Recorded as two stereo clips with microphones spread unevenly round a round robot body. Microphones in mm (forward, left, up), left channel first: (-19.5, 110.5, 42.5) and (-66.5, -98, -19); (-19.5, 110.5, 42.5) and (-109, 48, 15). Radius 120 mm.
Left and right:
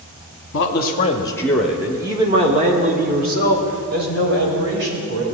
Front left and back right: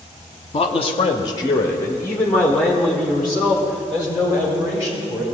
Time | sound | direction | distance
0.5 | a man speaking | 55° left | 0.8 m